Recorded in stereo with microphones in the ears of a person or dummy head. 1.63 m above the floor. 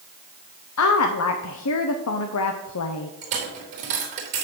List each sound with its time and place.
0.8 s a woman speaking: 80° left, 0.7 m
3.2 s a dropped coin: 40° right (ahead or behind), 3.5 m